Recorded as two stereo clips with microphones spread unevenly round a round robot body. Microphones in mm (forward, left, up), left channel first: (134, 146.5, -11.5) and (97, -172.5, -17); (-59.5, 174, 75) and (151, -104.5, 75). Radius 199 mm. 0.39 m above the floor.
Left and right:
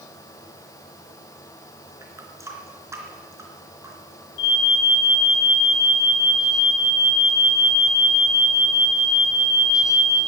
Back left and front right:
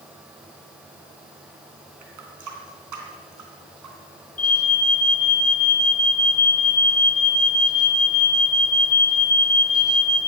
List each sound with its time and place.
2.0 s a running tap: 15° right, 3.5 m
4.4 s an alarm: 130° left, 2.5 m